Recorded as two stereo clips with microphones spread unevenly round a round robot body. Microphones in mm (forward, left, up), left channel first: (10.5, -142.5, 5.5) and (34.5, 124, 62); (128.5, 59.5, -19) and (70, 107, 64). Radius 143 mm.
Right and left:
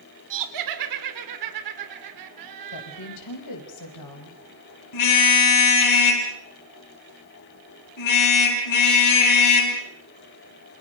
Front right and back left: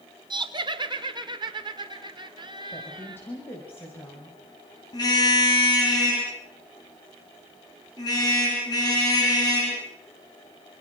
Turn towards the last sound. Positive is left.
turn(degrees=-90)